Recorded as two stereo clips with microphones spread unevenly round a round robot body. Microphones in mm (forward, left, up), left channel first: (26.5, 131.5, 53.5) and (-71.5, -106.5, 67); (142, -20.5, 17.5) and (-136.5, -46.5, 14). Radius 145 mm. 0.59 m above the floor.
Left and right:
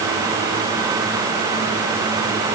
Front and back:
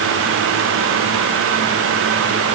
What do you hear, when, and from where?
Only background noise.